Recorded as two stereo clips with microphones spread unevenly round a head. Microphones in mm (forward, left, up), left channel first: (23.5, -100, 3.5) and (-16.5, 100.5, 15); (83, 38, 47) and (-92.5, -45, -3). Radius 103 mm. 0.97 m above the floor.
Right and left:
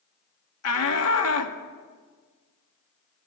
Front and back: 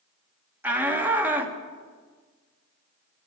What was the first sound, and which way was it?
A shout, 75° right.